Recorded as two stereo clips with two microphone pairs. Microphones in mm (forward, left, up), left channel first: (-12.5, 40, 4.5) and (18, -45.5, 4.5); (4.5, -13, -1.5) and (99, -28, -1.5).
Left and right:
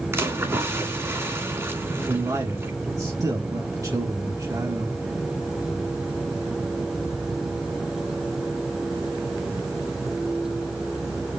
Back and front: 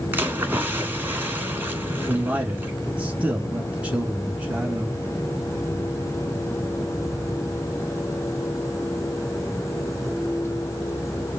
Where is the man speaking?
75° right, 1.3 m.